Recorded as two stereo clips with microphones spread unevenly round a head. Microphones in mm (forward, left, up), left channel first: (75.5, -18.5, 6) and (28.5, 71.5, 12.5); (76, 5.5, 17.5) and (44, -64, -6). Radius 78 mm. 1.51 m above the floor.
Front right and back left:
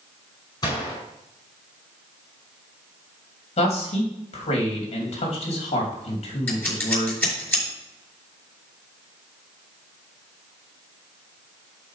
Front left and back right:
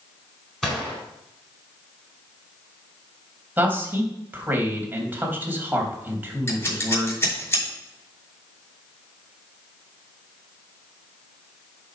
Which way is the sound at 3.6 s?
45° right.